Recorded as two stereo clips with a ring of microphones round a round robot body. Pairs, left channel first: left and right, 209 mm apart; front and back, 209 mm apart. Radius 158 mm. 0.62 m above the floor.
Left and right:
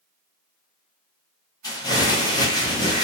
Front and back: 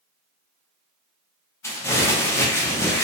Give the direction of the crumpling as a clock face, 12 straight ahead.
10 o'clock.